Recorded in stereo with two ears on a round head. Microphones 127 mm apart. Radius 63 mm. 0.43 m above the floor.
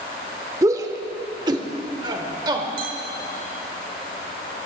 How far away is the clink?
About 1.4 m.